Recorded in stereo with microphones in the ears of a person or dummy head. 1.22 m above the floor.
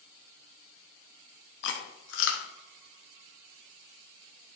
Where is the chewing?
60° left (ahead or behind), 1.1 m.